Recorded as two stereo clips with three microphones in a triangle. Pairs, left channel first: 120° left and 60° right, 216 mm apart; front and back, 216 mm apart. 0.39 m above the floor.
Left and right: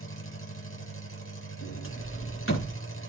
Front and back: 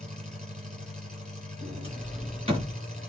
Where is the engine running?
125° left, 5.5 m.